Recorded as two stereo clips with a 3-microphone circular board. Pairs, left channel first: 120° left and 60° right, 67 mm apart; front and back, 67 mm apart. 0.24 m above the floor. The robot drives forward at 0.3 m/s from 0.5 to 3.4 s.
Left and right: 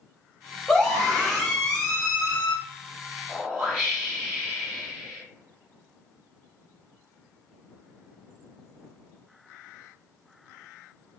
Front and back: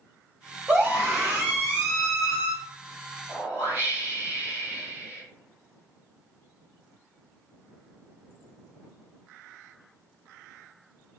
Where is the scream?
165° right, 1.2 m; by 2.5 s 175° right, 1.5 m.